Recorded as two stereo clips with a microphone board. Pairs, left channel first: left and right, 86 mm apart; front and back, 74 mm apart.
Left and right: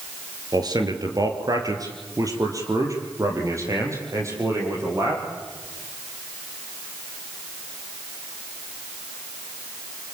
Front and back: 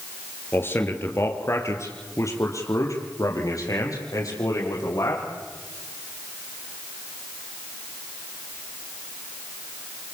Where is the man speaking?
55° right, 3.5 m; by 5.2 s 35° right, 7 m.